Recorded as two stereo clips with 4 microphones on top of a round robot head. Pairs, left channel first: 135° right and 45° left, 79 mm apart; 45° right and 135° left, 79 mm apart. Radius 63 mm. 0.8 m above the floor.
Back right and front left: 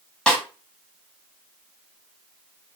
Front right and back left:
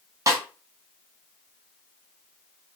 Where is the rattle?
I don't hear a rattle.